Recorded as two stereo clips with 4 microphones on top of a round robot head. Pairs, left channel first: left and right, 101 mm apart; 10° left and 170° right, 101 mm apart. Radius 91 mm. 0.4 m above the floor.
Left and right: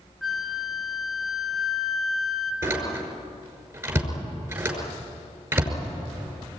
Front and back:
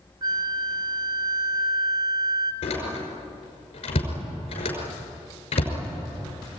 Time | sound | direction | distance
0.2 | a flute | straight behind | 1.3 m
2.6 | a door slam | 25° right | 5.5 m